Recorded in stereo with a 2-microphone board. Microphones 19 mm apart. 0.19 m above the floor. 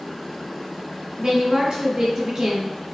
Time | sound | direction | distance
1.2 | a woman speaking | 50° right (ahead or behind) | 1.7 m